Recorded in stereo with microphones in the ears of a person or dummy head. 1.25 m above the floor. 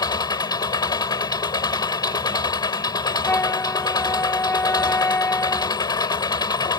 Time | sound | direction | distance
0.0 | an engine running | 25° left (ahead or behind) | ?
3.2 | a flute | 15° left (ahead or behind) | ?